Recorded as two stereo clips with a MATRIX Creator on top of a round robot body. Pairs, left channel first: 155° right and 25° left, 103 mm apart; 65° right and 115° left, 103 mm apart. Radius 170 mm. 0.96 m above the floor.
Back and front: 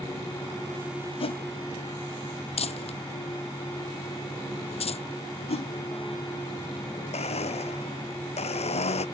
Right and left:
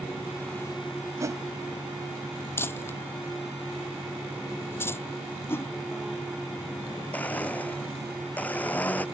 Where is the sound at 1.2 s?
175° left.